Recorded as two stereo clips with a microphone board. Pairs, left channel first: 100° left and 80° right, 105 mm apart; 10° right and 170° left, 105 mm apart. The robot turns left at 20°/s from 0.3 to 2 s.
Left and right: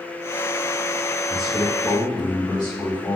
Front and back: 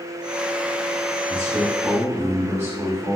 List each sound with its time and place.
1.3 s a man speaking: 130° left, 1.4 m; by 3.2 s 115° left, 1.4 m